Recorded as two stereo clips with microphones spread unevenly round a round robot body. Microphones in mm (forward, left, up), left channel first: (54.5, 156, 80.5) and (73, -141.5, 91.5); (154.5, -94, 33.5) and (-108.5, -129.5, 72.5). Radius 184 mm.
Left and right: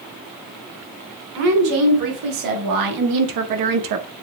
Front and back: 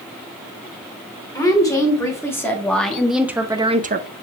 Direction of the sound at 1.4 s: 70° right.